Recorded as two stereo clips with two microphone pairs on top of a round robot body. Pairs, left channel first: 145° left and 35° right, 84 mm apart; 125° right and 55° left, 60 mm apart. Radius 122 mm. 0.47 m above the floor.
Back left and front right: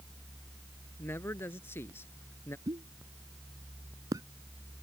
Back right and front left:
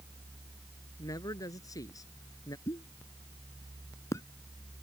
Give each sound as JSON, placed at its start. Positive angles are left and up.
{"t": 1.0, "sound": "a man speaking", "azimuth_deg": -155}
{"t": 2.7, "sound": "a pop", "azimuth_deg": -85}